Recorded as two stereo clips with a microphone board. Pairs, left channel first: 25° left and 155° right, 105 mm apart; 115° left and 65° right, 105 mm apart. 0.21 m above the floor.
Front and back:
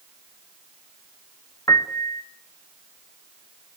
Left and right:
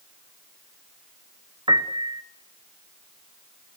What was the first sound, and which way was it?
A piano, 35° right.